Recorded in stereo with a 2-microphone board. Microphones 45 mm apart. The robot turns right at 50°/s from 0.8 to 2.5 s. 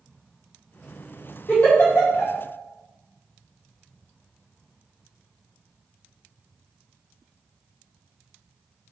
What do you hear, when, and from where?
1.5 s a giggle: 30° left (ahead or behind), 1.5 m; by 2.3 s 70° left (ahead or behind), 1.5 m